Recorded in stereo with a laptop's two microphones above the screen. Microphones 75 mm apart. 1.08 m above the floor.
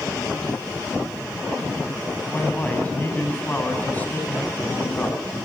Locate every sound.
2.3 s a man speaking: 25° left (ahead or behind), 7 m